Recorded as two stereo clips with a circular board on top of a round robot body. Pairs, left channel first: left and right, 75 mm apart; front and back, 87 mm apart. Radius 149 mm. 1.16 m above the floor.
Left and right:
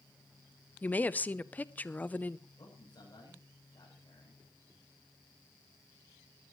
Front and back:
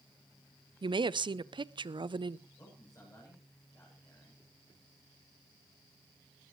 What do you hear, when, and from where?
0.8 s a woman speaking: 160° left, 0.7 m
2.6 s a man speaking: 55° left, 9 m